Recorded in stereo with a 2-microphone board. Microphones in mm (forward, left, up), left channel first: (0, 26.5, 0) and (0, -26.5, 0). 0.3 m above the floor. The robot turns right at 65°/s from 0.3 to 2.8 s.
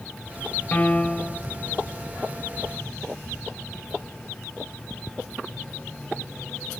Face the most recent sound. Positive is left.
turn(degrees=-80)